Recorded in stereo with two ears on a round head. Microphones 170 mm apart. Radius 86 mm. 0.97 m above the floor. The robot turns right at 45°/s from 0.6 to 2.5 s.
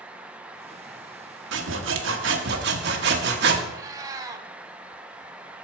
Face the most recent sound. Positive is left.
turn(degrees=-20)  # may be behind; listen again after turning